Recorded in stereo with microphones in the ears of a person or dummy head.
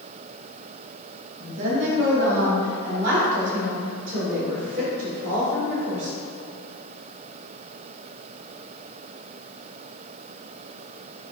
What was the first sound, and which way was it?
A woman speaking, 40° right (ahead or behind).